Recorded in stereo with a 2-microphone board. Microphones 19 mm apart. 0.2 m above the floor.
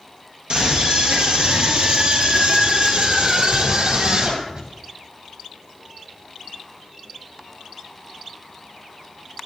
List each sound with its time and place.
0.5 s a scream: 50° right (ahead or behind), 4 m; by 4.7 s 60° right (ahead or behind), 6 m